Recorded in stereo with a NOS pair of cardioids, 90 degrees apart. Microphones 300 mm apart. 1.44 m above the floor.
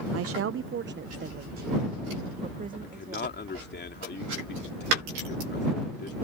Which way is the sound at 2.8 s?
35° left.